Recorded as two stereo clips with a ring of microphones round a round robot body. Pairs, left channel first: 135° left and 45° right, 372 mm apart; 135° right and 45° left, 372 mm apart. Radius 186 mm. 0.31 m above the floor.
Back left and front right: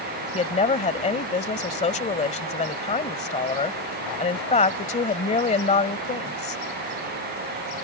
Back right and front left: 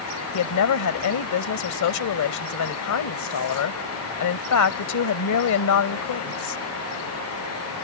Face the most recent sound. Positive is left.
turn(degrees=-155)